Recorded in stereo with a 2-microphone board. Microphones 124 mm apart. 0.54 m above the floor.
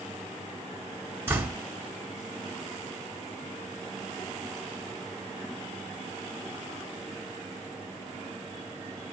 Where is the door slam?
20° right (ahead or behind), 1.3 m.